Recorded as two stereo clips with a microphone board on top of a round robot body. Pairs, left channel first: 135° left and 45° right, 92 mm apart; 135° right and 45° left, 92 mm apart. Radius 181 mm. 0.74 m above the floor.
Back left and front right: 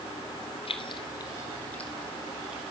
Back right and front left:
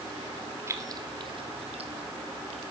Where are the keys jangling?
110° left, 1.7 m; by 2.6 s 35° left, 2.5 m.